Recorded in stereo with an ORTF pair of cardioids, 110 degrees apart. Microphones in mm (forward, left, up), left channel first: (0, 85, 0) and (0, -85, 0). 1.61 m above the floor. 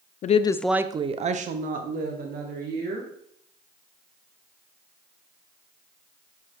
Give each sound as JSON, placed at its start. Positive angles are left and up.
{"t": 0.2, "sound": "a woman speaking", "azimuth_deg": 45, "distance_m": 0.6}